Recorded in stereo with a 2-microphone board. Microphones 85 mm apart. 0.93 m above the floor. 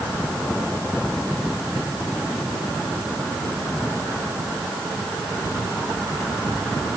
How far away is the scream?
No scream in this recording.